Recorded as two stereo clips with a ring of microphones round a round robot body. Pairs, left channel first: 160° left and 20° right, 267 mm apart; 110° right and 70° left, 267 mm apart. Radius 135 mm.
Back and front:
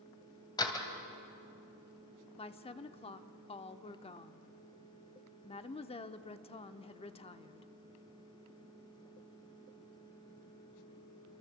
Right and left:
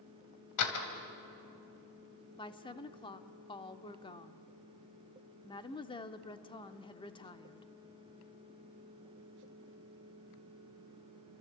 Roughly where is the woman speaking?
Behind.